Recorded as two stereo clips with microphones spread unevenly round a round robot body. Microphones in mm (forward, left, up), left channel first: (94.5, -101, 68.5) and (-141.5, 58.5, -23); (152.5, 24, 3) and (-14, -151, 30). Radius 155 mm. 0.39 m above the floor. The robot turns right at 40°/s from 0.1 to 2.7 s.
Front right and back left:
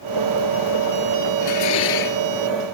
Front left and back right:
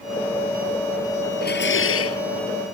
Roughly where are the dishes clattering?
Ahead.